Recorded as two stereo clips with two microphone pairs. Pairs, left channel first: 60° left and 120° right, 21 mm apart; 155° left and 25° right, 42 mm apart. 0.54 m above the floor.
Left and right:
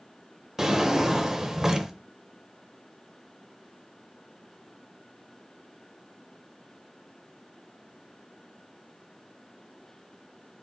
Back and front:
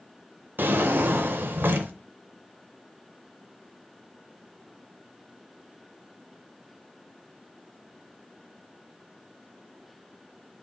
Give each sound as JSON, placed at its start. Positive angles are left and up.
{"t": 0.6, "sound": "a drawer", "azimuth_deg": -55, "distance_m": 0.5}